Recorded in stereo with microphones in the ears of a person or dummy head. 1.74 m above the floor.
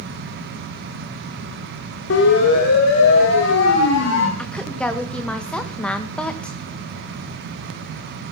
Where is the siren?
65° left (ahead or behind), 3.5 m; by 4.3 s 70° left (ahead or behind), 5 m.